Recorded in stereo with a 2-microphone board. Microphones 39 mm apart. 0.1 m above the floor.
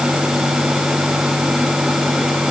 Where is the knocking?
No knocking in this recording.